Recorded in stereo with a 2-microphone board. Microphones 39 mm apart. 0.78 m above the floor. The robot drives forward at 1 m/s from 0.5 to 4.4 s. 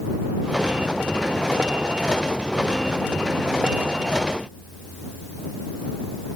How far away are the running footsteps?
I don't hear running footsteps.